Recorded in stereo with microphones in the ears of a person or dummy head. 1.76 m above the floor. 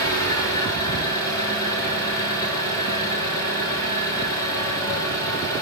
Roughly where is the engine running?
Centre.